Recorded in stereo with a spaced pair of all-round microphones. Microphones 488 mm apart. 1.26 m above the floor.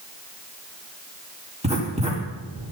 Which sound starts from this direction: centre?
Writing, at 1.6 s.